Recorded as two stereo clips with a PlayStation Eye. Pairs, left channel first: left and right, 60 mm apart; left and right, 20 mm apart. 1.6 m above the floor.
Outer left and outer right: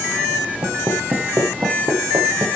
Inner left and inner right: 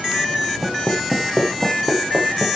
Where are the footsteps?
60° right (ahead or behind), 5.5 m; by 2.6 s 75° right (ahead or behind), 6.5 m.